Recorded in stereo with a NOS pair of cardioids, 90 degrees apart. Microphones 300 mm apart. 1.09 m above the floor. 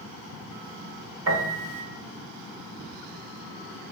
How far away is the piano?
About 1.8 m.